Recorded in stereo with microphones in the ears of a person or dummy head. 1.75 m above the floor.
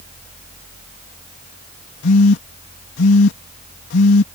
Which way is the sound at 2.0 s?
70° left (ahead or behind).